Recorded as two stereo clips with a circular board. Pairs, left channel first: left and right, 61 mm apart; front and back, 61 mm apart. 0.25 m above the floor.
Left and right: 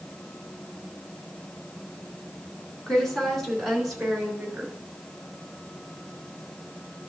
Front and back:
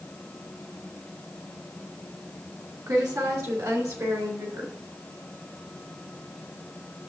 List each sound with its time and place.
2.9 s a woman speaking: 170° left, 3 m; by 4.7 s 165° right, 3.5 m